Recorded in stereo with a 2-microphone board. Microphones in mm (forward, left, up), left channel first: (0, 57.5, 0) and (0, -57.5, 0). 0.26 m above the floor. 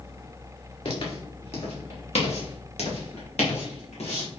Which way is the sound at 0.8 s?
60° left (ahead or behind).